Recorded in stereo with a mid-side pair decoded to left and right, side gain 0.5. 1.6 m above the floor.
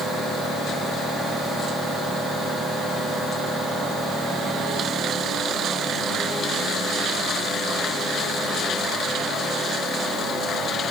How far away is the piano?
I don't hear a piano.